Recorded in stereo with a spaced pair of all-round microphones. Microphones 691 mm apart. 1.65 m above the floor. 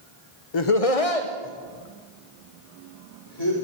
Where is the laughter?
40° left (ahead or behind), 0.7 m.